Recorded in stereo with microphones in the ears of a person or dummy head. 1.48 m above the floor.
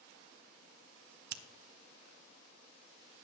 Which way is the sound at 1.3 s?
60° right (ahead or behind).